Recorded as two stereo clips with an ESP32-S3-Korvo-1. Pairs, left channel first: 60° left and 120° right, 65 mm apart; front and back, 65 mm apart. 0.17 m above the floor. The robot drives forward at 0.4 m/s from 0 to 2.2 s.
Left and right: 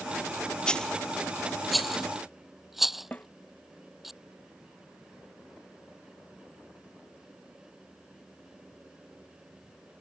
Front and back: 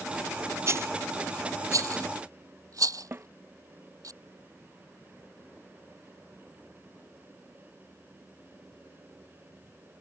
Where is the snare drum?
120° left.